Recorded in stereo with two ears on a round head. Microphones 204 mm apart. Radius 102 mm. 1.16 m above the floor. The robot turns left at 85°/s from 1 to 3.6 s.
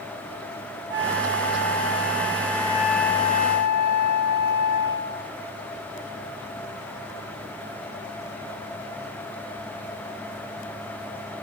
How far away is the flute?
About 4.5 m.